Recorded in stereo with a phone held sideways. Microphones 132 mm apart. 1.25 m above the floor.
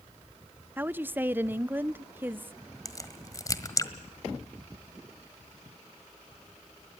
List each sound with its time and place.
0.8 s a woman speaking: 15° right (ahead or behind), 0.5 m
2.9 s a crack: 25° left (ahead or behind), 1.5 m